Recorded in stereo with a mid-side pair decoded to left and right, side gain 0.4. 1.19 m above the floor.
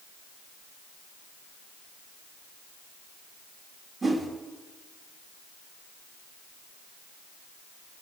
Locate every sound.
4.0 s a whoosh: 45° right, 1.7 m